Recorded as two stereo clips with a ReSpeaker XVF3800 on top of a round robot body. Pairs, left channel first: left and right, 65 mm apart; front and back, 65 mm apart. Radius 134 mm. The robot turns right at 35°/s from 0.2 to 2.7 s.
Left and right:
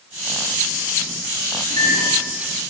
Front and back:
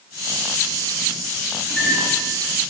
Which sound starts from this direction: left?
A microwave, at 1.7 s.